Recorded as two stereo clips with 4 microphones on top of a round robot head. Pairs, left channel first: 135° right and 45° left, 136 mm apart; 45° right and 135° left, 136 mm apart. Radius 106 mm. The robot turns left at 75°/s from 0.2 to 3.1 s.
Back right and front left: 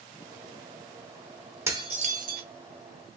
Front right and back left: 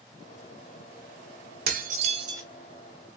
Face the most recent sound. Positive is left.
turn(degrees=10)